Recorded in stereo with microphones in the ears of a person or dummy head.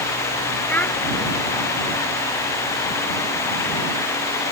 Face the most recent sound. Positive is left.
turn(degrees=10)  # may be behind; listen again after turning